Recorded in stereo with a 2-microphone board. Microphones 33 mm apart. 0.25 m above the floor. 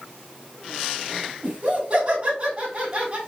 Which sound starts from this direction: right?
Laughter, at 1.4 s.